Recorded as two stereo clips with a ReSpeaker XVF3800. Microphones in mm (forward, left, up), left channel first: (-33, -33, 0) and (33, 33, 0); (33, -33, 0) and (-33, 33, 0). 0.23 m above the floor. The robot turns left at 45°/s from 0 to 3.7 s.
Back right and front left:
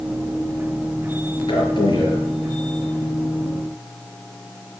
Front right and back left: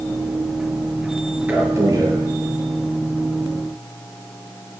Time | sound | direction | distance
1.5 | a man speaking | 155° right | 5.5 m